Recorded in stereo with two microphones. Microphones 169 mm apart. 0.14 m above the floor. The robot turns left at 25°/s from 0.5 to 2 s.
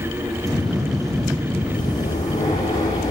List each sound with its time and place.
1.7 s breathing: 30° left (ahead or behind), 6 m; by 3.1 s 20° left (ahead or behind), 6 m